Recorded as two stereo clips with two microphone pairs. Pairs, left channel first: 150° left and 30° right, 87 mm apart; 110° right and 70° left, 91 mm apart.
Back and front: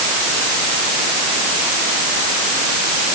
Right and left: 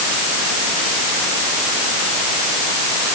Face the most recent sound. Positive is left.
No sound to turn to.